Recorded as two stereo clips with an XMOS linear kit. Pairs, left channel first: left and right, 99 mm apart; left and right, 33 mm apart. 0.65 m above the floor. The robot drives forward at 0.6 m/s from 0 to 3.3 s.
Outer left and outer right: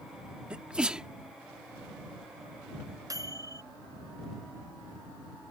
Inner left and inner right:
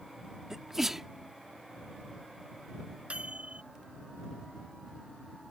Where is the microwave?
40° right (ahead or behind); by 3.6 s 35° right (ahead or behind).